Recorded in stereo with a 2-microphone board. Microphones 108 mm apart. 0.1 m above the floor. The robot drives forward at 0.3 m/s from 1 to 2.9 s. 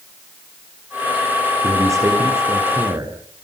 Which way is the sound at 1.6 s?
30° right (ahead or behind).